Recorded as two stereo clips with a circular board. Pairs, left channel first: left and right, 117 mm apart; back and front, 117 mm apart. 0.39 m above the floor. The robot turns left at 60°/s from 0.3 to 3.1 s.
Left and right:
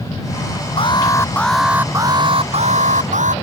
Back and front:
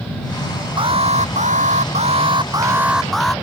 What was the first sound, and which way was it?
An alarm, 50° left.